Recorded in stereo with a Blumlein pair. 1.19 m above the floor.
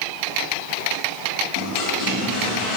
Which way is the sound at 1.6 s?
45° left.